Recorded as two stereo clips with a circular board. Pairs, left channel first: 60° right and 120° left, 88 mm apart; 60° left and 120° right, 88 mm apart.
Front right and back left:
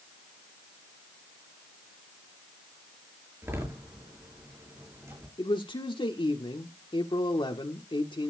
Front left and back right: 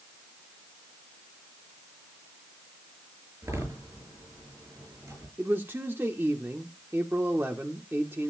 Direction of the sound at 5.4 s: 60° right.